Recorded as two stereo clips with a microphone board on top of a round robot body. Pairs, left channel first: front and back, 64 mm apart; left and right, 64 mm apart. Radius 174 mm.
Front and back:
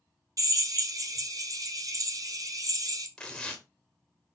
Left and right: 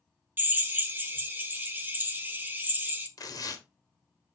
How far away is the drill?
About 1.6 m.